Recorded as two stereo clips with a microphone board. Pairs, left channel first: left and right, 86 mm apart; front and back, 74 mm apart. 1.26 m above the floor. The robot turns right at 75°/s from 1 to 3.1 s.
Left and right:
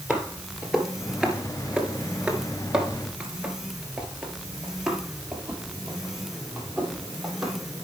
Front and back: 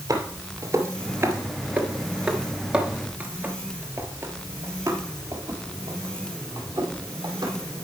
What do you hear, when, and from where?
0.1 s footsteps: 170° right, 1.8 m; by 7.8 s straight behind, 3 m